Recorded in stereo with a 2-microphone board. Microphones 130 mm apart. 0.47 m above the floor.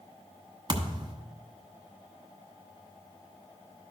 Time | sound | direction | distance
0.7 | a thud | 40° right (ahead or behind) | 1.1 m